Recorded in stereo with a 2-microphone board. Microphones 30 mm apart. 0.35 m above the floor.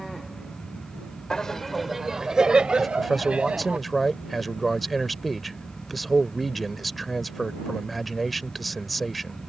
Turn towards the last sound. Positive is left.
turn(degrees=0)  # may be behind; listen again after turning